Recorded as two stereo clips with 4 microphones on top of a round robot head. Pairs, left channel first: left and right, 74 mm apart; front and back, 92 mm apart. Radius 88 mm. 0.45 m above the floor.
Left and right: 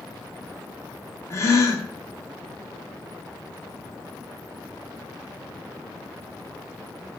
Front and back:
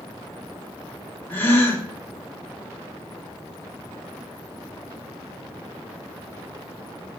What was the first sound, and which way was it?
A gasp, 60° left.